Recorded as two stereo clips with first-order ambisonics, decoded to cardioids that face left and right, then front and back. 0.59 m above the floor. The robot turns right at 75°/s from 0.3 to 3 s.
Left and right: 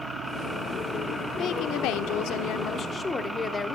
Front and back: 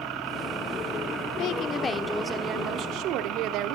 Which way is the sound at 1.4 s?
40° left.